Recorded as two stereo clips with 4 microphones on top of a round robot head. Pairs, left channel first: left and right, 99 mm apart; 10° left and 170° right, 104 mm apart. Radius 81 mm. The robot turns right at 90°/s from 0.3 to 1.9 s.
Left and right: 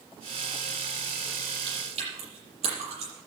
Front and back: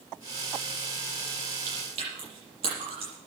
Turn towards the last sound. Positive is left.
turn(degrees=-125)